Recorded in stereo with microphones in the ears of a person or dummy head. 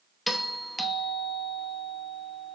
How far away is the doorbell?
About 1.4 m.